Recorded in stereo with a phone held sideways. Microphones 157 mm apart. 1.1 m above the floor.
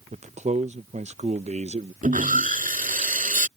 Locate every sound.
0.1 s a man speaking: 45° right (ahead or behind)
2.0 s sawing: 60° right (ahead or behind)